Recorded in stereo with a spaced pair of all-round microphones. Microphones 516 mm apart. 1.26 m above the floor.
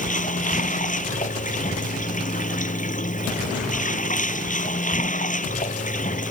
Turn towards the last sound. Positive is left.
turn(degrees=15)  # may be behind; listen again after turning